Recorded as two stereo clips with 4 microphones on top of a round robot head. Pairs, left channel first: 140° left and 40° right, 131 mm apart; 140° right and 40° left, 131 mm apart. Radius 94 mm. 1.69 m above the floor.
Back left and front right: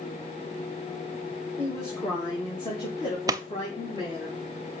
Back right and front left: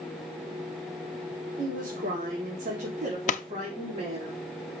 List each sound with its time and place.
1.6 s a woman speaking: 65° left, 2 m; by 4.3 s 90° left, 4 m
3.3 s a pop: 105° right, 0.7 m